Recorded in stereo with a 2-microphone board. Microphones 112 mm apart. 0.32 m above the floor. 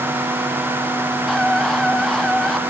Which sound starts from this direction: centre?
A scream, at 1.3 s.